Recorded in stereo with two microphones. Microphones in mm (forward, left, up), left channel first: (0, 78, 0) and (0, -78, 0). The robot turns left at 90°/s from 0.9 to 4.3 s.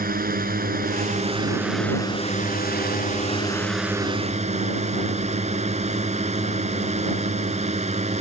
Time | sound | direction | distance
0.0 | a drone | 105° right | ?